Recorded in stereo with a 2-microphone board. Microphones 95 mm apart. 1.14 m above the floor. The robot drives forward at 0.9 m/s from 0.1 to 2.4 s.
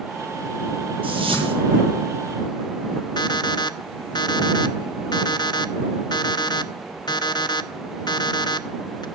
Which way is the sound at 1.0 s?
70° right (ahead or behind).